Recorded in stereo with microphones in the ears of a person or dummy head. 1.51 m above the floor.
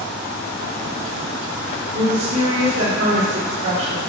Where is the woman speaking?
70° right (ahead or behind), 3.5 m.